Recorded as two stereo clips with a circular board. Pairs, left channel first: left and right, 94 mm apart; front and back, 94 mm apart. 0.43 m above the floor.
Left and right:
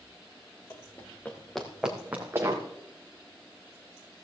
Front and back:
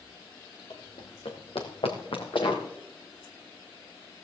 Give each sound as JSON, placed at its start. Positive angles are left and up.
{"t": 0.7, "sound": "running footsteps", "azimuth_deg": 30, "distance_m": 3.0}